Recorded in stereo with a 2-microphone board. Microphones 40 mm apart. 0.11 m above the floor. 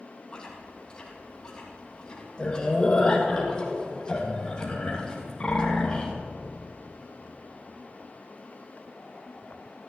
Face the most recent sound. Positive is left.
turn(degrees=15)  # may be behind; listen again after turning